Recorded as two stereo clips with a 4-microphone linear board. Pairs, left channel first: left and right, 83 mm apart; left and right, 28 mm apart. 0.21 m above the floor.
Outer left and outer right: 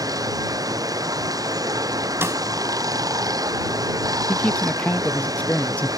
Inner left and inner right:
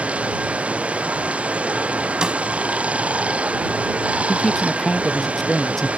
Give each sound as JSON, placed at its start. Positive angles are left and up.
{"t": 0.0, "sound": "running water", "side_deg": -45}
{"t": 2.2, "sound": "a snare drum", "side_deg": -30}
{"t": 4.3, "sound": "a man speaking", "side_deg": 15}